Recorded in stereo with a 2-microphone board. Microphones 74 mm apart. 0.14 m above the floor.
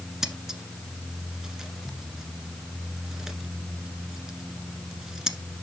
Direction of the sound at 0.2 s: 5° right (ahead or behind).